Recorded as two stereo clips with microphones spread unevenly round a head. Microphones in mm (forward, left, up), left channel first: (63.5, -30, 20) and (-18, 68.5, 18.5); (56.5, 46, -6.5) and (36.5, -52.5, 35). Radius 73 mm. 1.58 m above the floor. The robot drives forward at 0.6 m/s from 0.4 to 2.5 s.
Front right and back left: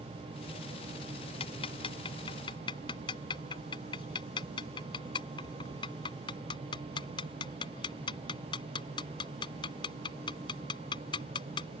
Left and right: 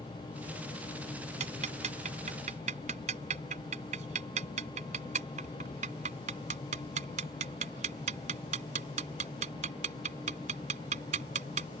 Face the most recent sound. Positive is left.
turn(degrees=-115)